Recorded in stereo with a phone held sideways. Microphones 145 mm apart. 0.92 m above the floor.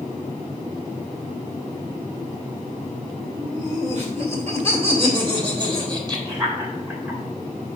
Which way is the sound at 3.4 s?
60° right (ahead or behind).